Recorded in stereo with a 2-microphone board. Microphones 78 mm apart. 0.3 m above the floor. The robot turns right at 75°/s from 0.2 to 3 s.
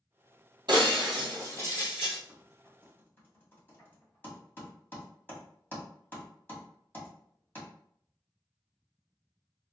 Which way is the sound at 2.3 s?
20° right (ahead or behind).